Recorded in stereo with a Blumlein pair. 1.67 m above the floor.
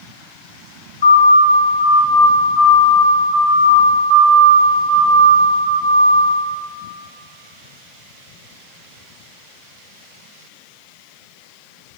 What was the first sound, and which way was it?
A siren, 65° left.